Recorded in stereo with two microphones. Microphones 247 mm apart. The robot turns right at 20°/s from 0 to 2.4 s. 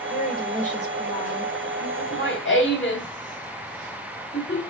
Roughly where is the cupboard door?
I don't hear a cupboard door.